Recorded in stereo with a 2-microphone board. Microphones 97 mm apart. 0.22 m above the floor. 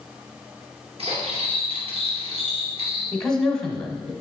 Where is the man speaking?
5° left (ahead or behind), 1.2 m.